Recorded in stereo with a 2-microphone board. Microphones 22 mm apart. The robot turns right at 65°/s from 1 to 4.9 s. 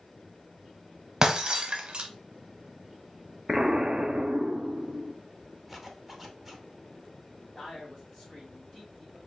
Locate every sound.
1.2 s breaking glass: 30° right (ahead or behind), 0.8 m; by 2.1 s 40° right (ahead or behind), 0.8 m
3.5 s an explosion: 155° right, 0.7 m; by 5.2 s 65° right, 0.7 m
5.7 s a zipper: 10° right (ahead or behind), 0.7 m
7.5 s a man speaking: centre (ahead or behind), 2 m